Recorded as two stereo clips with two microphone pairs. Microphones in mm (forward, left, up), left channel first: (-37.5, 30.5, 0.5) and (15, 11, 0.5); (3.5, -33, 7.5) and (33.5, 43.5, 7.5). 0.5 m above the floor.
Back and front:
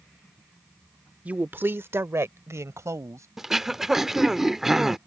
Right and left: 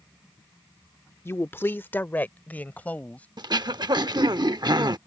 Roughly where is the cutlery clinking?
I don't hear cutlery clinking.